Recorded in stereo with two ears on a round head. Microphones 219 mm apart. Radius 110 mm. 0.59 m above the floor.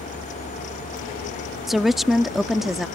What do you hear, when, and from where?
1.7 s a woman speaking: centre (ahead or behind)